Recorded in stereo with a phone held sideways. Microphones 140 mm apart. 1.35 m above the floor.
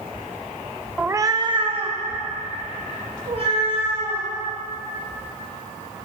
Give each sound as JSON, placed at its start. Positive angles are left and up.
{"t": 1.0, "sound": "a cat meowing", "side_deg": -10, "distance_m": 0.5}